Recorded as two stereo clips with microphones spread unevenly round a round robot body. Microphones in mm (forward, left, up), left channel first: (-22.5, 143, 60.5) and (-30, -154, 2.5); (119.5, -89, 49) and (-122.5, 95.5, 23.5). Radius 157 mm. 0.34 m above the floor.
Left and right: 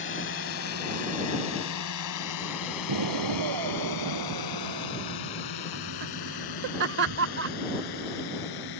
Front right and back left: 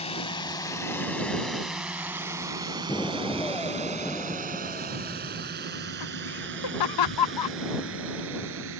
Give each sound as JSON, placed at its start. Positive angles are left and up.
{"t": 0.0, "sound": "a drone", "azimuth_deg": 35}
{"t": 2.9, "sound": "an explosion", "azimuth_deg": -115}
{"t": 5.7, "sound": "laughter", "azimuth_deg": -40}